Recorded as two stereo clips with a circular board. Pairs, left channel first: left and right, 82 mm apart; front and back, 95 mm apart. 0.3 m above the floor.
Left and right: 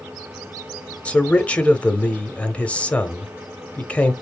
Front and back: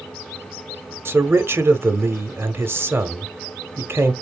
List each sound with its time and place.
1.1 s a man speaking: 145° left, 1.0 m